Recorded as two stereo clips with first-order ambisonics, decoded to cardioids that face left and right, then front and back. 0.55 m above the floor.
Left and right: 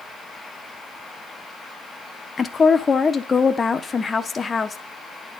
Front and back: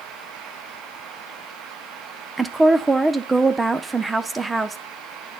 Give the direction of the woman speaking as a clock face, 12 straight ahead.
8 o'clock.